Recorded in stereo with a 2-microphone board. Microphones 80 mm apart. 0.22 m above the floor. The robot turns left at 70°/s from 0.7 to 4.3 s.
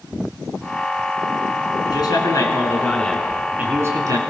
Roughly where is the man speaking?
Left.